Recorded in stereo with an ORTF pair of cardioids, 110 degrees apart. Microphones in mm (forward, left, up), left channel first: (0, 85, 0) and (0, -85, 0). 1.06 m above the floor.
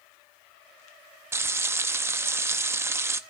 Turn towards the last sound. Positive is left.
turn(degrees=-15)